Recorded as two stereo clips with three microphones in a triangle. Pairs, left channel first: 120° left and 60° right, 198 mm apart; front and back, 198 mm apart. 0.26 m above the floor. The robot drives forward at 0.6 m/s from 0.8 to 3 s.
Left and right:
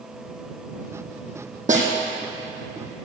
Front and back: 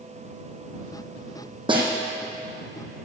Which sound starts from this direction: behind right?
A snare drum, at 1.7 s.